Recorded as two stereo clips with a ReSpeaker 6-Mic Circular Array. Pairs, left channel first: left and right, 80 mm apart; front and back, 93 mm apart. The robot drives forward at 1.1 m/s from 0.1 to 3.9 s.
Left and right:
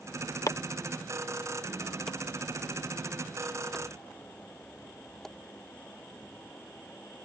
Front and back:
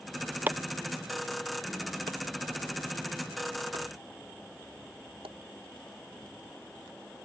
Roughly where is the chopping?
Behind left.